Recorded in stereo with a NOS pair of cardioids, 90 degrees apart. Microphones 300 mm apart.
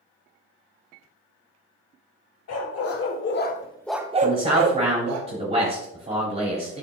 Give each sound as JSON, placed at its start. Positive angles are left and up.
{"t": 2.5, "sound": "a dog barking", "azimuth_deg": 65, "distance_m": 2.0}
{"t": 4.2, "sound": "a man speaking", "azimuth_deg": -20, "distance_m": 4.0}